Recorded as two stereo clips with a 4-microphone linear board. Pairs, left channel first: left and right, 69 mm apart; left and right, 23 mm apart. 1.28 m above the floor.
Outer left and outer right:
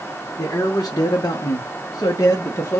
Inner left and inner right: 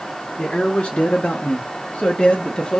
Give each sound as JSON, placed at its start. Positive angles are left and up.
{"t": 0.4, "sound": "a man speaking", "side_deg": 45, "distance_m": 0.8}